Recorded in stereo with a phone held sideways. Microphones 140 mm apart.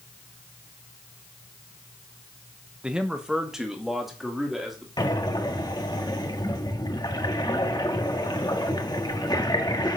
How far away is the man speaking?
About 0.9 m.